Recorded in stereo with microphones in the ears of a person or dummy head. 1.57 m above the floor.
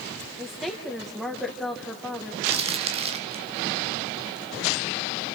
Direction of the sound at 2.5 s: 30° right (ahead or behind).